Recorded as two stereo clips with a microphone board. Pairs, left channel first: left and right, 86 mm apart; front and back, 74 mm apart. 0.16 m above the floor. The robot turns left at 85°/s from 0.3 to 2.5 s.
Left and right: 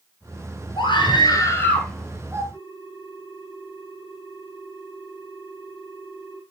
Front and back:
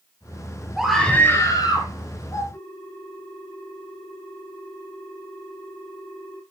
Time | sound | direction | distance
0.8 | a scream | 100° left | 3 m
2.5 | a ringtone | 60° left | 3 m